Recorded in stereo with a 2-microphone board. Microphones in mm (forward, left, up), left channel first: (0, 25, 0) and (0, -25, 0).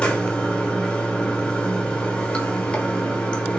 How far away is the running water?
About 1.1 m.